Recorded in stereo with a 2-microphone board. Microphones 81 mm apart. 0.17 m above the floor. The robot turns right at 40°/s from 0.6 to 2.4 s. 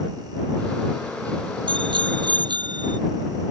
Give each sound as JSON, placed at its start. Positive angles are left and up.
{"t": 1.7, "sound": "a bicycle bell", "side_deg": -75}